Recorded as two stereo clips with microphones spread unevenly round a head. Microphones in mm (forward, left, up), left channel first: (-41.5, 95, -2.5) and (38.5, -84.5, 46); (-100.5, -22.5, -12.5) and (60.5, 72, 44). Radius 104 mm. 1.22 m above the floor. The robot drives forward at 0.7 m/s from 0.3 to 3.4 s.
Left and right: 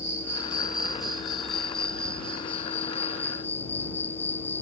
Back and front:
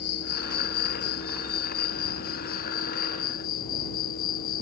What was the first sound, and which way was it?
An insect, 140° right.